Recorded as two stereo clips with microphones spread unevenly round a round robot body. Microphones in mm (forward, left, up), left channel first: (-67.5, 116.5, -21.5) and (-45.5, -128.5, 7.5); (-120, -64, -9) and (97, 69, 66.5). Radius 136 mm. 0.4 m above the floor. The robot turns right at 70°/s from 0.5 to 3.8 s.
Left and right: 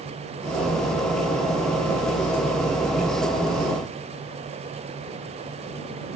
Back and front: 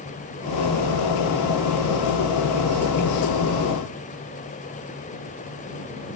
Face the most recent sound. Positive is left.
No sound to turn to.